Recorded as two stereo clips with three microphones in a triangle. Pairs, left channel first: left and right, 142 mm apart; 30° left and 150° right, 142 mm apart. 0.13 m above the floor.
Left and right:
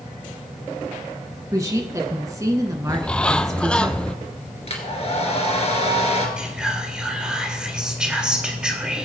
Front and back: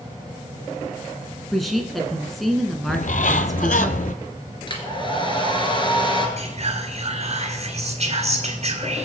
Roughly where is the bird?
Ahead.